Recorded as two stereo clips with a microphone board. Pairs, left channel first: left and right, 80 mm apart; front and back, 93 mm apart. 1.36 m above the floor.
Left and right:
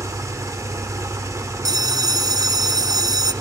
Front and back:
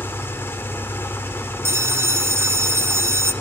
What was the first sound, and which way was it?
An engine running, 55° right.